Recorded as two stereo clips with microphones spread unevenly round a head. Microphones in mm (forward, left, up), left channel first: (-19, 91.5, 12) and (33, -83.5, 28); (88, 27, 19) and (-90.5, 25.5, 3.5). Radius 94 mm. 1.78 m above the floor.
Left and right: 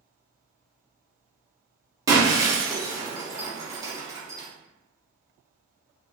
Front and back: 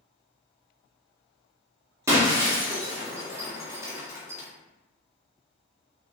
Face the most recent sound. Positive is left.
turn(degrees=-110)